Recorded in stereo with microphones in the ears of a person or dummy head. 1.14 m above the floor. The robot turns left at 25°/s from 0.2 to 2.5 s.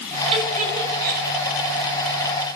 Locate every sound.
0.3 s a giggle: 35° right (ahead or behind), 5 m; by 1.2 s 60° right (ahead or behind), 5 m